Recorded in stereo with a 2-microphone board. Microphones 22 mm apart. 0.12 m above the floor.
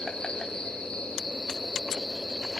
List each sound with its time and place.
0.0 s an insect: 30° left (ahead or behind), 2 m